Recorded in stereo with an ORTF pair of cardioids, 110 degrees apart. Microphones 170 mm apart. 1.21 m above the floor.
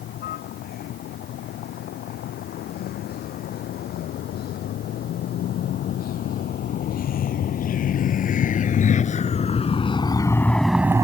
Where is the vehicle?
70° left; by 11.1 s 20° right.